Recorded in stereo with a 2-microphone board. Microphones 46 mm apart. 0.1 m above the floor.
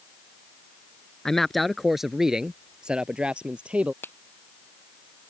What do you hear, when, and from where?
1.2 s a man speaking: 10° left (ahead or behind); by 3.9 s 25° right (ahead or behind)
4.0 s a finger snap: 50° left (ahead or behind)